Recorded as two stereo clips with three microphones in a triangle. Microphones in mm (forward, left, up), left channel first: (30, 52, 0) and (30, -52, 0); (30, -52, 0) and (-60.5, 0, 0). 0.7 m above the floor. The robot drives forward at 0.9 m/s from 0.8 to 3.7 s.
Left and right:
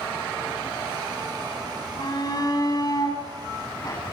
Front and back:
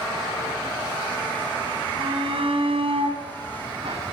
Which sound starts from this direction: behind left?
A shout, at 2.0 s.